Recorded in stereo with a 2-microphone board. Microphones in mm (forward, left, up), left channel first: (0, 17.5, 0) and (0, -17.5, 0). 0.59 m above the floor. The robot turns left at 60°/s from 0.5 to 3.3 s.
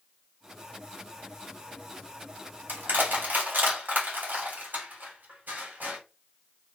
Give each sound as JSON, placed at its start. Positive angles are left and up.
{"t": 2.7, "sound": "crushing", "side_deg": -65, "distance_m": 3.0}